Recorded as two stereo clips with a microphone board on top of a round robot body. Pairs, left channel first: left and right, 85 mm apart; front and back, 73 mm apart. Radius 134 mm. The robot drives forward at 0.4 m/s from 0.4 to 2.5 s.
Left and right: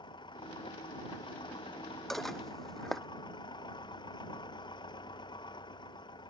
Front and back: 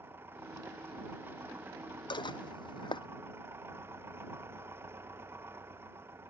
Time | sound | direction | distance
0.0 | an engine running | 120° left | ?
2.1 | dishes clattering | 5° left | ?